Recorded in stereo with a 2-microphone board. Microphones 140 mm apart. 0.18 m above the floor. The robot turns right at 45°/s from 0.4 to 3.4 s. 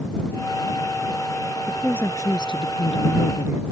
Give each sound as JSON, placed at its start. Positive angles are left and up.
{"t": 1.7, "sound": "a woman speaking", "azimuth_deg": 5}